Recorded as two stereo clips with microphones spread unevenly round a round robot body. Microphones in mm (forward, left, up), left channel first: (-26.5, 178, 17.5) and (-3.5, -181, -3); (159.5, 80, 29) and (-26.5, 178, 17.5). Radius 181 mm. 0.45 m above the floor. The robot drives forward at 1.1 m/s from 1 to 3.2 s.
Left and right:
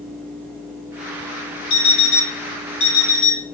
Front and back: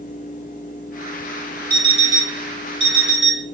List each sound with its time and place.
1.7 s an alarm clock: 75° left, 1.4 m; by 3.5 s 130° left, 1.9 m